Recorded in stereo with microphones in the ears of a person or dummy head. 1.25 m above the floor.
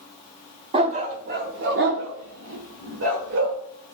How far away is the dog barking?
About 1.0 m.